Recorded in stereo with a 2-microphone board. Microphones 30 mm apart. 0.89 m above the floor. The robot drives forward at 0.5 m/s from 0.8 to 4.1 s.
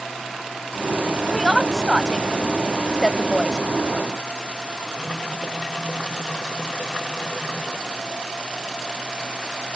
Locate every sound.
1.3 s a woman speaking: 5° right (ahead or behind)